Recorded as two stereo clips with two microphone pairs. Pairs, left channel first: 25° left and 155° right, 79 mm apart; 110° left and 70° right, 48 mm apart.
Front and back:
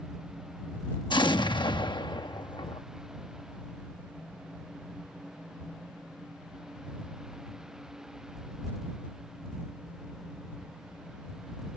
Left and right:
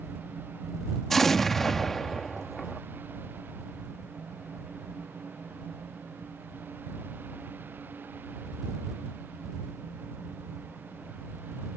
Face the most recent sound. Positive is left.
turn(degrees=25)